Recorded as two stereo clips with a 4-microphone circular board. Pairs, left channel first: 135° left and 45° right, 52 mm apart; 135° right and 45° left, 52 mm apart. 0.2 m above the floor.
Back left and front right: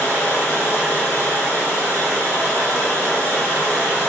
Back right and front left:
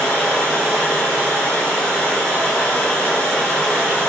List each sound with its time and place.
0.0 s running water: 160° left, 1.6 m